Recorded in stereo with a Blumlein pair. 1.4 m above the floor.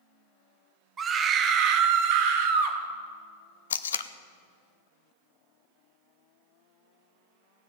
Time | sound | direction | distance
1.0 | a scream | 20° right | 1.2 m
3.7 | tape being pulled | 65° left | 0.5 m